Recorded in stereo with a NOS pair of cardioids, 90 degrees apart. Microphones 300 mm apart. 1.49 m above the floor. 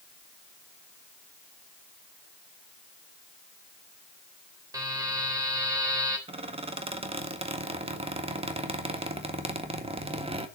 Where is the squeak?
20° right, 1.7 m.